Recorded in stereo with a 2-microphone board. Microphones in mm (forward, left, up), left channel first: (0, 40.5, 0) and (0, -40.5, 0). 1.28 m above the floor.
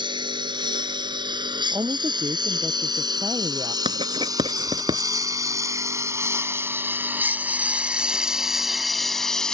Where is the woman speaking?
45° right (ahead or behind).